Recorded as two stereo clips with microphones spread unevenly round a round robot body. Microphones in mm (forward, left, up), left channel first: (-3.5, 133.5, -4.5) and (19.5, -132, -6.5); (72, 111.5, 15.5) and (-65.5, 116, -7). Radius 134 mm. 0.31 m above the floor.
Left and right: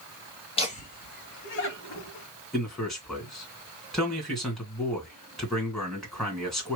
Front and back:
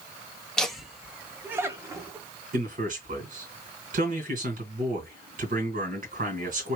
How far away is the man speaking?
About 2.5 m.